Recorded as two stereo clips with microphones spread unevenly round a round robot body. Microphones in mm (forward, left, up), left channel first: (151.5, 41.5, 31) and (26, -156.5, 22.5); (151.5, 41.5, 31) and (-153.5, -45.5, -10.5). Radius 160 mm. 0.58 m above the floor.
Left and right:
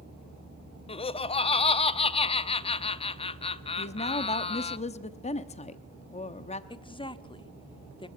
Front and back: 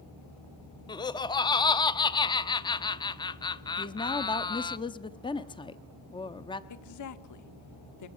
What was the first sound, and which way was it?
Laughter, 95° left.